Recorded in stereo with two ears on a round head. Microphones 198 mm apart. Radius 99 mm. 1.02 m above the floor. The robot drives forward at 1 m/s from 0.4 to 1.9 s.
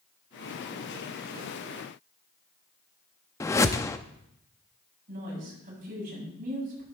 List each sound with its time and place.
3.4 s a whoosh: 15° left (ahead or behind), 0.6 m
5.1 s a woman speaking: 40° right (ahead or behind), 8 m